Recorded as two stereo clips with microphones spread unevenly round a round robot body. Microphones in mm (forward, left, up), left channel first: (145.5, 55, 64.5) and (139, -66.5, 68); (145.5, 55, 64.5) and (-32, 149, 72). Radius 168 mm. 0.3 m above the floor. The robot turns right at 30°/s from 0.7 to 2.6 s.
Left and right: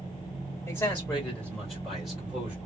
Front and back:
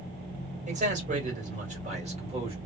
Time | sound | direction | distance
0.7 | a man speaking | 140° left | 1.6 m